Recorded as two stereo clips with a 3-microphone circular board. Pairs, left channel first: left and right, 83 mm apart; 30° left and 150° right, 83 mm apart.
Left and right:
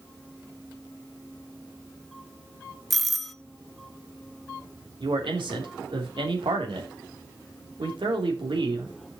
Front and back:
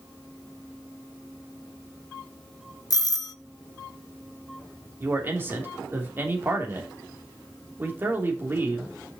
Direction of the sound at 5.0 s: 85° right.